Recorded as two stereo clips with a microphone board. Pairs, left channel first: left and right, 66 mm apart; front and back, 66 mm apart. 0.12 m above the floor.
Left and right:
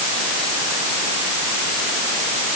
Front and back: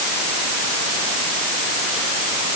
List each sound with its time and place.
Only background noise.